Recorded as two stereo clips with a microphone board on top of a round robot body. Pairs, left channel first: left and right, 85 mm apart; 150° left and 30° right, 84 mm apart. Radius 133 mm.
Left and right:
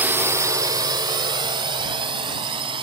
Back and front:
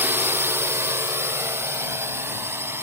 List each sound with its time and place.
0.0 s a drone: 55° right; by 2.8 s 90° right